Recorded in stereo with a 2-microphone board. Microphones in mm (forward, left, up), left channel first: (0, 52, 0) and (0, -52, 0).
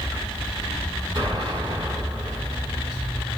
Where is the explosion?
40° right (ahead or behind), 5.5 m.